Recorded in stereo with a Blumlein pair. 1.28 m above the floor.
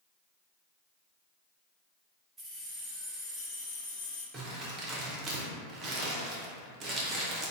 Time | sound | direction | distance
2.4 | keys jangling | 10° right | 1.0 m
4.3 | crumpling | 25° right | 0.7 m